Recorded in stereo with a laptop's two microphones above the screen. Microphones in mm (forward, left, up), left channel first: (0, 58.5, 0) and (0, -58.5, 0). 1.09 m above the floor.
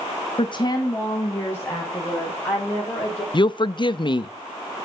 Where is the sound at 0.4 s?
50° left (ahead or behind), 0.8 m; by 3.2 s 10° left (ahead or behind), 3.5 m.